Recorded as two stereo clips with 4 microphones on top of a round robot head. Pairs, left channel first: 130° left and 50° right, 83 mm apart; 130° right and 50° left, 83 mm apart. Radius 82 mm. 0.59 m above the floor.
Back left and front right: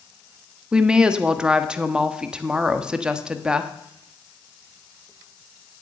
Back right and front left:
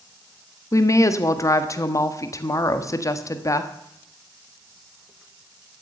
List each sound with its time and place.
0.7 s a woman speaking: 125° right, 1.4 m